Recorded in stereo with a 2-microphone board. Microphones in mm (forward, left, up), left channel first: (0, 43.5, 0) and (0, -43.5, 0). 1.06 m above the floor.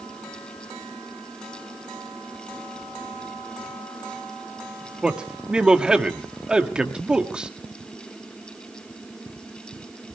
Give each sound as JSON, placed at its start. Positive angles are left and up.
{"t": 5.0, "sound": "a man speaking", "side_deg": -10, "distance_m": 1.5}